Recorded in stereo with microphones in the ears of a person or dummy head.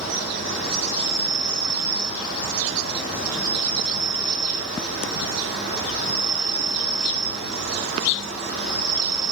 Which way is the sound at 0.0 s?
60° right (ahead or behind).